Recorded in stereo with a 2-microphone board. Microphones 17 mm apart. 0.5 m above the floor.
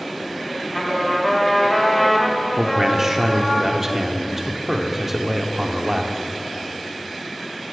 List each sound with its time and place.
0.7 s a trumpet: 15° left (ahead or behind), 1.3 m
2.6 s a man speaking: 25° right (ahead or behind), 0.9 m